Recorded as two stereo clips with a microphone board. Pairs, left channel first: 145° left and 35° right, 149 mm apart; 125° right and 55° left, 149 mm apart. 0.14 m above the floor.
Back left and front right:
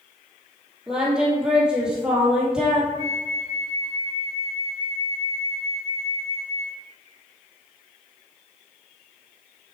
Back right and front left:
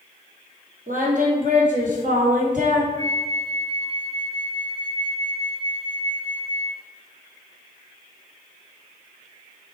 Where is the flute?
5° left, 3 m.